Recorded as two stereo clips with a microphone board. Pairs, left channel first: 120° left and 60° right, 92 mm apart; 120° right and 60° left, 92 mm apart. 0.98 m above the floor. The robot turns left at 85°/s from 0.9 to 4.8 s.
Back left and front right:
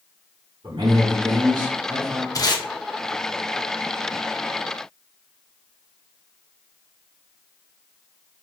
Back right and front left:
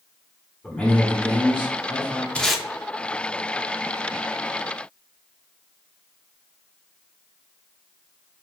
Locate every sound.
0.6 s a man speaking: 45° right, 1.6 m; by 2.2 s 160° right, 1.6 m
2.4 s tape being pulled: 165° left, 0.8 m; by 2.6 s 140° left, 0.8 m